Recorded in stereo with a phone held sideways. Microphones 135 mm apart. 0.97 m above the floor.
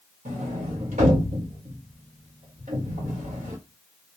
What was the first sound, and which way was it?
A sliding door, 65° right (ahead or behind).